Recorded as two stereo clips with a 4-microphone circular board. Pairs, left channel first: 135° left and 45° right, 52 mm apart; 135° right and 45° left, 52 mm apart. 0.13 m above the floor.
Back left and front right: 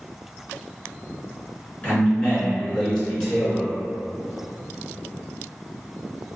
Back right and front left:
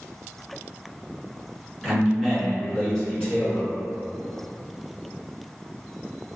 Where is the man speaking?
135° left, 1.4 m; by 3.7 s 125° right, 1.2 m.